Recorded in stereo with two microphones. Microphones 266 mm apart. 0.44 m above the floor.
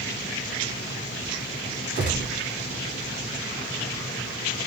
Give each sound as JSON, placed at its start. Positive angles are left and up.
{"t": 1.9, "sound": "a gunshot", "side_deg": -50, "distance_m": 1.8}